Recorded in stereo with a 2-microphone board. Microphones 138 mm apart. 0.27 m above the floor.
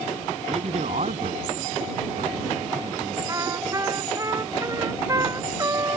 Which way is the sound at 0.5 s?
55° right (ahead or behind).